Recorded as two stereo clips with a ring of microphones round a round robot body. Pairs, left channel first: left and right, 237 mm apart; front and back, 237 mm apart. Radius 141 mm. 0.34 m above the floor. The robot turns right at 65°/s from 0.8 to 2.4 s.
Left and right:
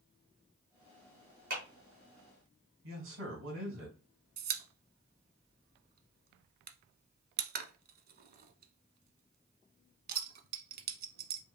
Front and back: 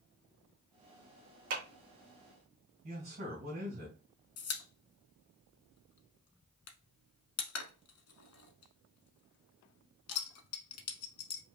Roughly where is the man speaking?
Behind right.